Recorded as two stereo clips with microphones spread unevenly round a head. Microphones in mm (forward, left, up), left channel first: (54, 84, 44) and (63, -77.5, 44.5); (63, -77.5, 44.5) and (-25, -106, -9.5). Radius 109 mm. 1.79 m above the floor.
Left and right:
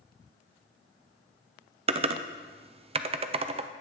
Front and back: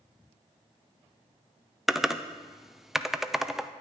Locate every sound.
1.9 s typing on a keyboard: 45° right, 0.6 m